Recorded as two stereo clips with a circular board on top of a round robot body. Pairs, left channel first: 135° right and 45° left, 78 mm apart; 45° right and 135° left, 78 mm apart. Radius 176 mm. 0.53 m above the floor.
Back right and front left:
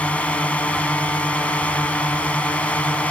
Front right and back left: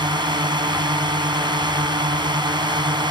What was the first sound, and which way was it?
A drone, 150° left.